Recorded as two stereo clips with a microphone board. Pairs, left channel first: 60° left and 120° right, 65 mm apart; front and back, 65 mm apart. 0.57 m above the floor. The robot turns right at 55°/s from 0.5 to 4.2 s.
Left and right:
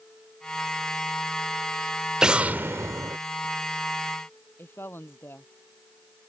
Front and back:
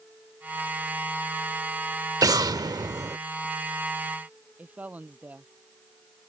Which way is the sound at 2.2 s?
160° left.